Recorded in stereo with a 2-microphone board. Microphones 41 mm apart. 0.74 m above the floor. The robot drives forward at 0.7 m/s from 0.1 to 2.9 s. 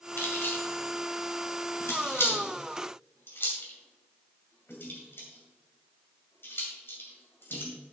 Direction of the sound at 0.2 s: 65° left (ahead or behind).